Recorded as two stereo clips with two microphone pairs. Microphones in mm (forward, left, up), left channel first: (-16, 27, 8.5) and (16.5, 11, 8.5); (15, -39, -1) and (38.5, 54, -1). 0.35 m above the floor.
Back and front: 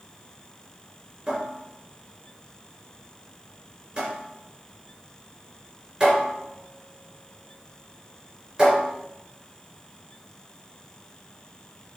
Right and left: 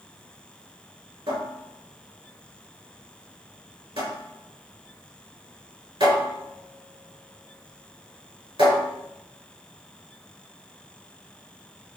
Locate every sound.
1.3 s a cupboard door: 50° left, 3.5 m